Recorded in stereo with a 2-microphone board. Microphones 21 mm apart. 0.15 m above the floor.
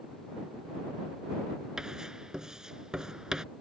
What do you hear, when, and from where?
1.8 s writing: 35° right (ahead or behind)